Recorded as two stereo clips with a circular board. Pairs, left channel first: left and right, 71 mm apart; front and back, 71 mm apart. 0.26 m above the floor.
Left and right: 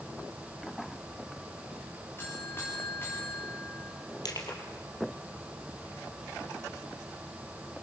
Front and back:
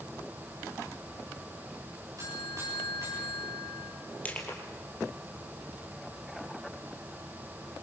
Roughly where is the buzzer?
Behind left.